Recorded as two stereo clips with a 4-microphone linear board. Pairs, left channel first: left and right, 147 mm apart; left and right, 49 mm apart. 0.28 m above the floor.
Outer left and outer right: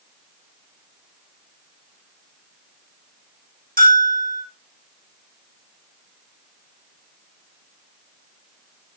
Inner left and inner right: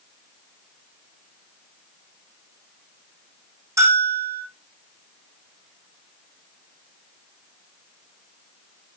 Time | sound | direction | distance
3.8 | a bell | 75° right (ahead or behind) | 5 m